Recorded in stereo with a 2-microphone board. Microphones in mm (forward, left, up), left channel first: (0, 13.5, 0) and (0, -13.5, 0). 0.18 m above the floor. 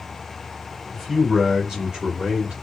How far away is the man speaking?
About 1.3 m.